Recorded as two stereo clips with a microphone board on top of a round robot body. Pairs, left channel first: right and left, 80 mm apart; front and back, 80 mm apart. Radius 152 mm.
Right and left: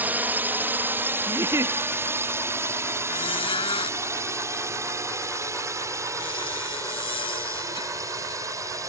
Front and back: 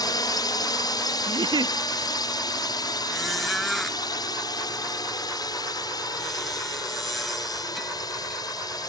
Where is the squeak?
90° right.